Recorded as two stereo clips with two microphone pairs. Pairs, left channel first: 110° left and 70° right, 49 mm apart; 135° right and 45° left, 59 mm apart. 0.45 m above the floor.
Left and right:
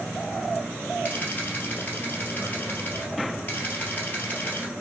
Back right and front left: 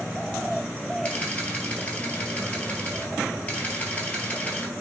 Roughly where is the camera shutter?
Behind.